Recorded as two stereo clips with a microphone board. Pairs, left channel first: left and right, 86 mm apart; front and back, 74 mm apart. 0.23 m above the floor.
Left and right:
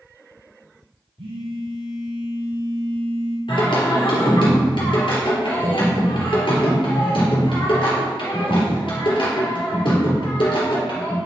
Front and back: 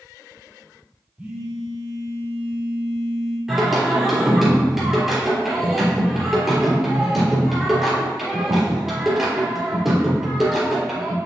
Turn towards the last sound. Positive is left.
turn(degrees=90)